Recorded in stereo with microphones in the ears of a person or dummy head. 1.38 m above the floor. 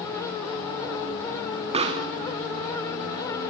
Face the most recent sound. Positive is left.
turn(degrees=-30)  # may be behind; listen again after turning